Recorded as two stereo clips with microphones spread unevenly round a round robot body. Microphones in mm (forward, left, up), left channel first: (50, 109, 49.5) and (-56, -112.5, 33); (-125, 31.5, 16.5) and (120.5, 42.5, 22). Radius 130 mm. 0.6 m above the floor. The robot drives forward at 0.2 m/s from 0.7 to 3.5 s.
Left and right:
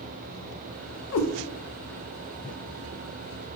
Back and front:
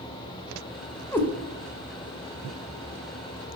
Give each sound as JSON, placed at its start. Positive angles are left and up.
{"t": 1.1, "sound": "a cat meowing", "azimuth_deg": 100, "distance_m": 0.5}